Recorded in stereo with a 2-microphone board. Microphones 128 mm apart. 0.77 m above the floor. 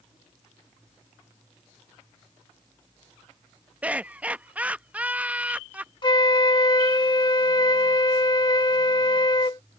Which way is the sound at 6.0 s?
35° left (ahead or behind).